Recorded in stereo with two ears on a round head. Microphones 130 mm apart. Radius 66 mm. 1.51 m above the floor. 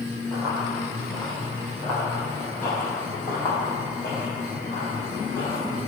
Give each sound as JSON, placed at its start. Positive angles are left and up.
{"t": 0.3, "sound": "running footsteps", "side_deg": 0, "distance_m": 3.0}